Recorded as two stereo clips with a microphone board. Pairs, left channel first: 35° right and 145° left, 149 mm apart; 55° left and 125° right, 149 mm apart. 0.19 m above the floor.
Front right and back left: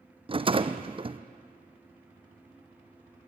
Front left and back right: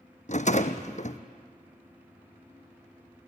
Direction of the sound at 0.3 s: 95° left.